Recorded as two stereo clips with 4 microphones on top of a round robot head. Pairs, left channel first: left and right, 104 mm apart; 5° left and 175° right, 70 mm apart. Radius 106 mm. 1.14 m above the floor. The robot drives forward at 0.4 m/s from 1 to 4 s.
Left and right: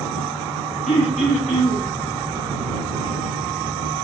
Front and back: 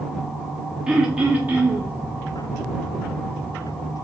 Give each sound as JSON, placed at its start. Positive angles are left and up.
{"t": 0.9, "sound": "throat clearing", "azimuth_deg": 105, "distance_m": 0.8}